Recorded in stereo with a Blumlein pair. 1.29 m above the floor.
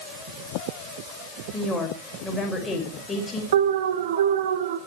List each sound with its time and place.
1.5 s a woman speaking: 10° left, 5.5 m
3.5 s an alarm: 60° right, 2.5 m